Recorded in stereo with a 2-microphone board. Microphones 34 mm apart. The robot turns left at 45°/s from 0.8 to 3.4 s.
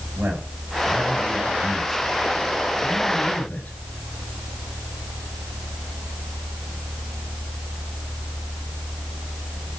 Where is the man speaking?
65° right (ahead or behind), 8 m; by 3.8 s 55° left (ahead or behind), 8 m.